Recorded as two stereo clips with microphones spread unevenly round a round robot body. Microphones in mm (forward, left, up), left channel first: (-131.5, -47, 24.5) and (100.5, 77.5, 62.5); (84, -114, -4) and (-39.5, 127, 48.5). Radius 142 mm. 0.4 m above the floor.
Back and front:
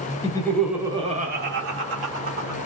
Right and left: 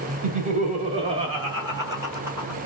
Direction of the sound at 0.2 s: Straight behind.